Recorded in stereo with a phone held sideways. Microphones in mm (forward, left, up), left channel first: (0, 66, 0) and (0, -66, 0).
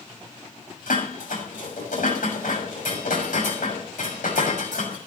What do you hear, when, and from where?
0.9 s dishes clattering: 85° left, 6 m